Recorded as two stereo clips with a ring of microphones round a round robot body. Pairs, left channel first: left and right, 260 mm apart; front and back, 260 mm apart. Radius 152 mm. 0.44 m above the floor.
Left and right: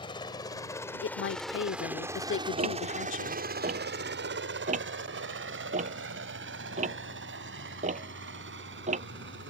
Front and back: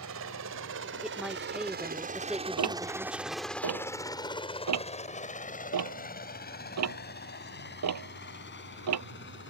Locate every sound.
0.0 s a helicopter: 160° left; by 9.5 s 45° right
1.0 s a woman speaking: 95° left
2.6 s ticking: 155° right